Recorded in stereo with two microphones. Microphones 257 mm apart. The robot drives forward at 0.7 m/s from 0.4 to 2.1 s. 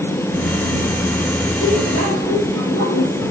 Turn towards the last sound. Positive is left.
turn(degrees=55)  # may be behind; listen again after turning